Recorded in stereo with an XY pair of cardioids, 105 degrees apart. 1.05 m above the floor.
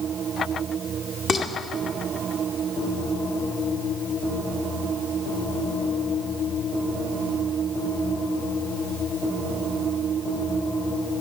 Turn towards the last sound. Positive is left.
turn(degrees=55)